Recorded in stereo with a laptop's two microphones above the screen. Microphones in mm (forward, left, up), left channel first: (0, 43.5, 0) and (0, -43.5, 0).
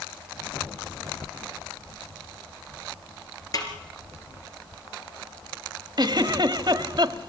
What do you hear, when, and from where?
3.5 s a snare drum: 45° left (ahead or behind), 3.5 m
6.0 s a giggle: 55° right (ahead or behind), 1.3 m